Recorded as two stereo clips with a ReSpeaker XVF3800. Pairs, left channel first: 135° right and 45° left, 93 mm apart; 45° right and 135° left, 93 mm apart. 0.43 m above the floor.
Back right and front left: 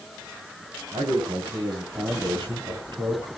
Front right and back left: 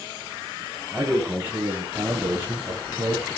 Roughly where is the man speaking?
Ahead left.